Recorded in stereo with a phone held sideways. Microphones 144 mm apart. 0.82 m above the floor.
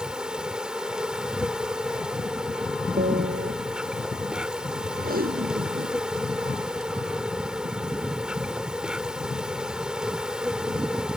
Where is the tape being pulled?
80° right.